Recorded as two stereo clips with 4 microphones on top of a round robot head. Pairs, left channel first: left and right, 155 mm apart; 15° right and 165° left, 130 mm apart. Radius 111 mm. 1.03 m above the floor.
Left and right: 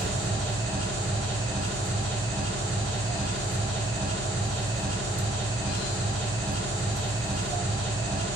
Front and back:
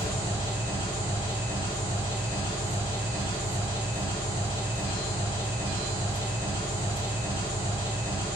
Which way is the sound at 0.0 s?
75° right.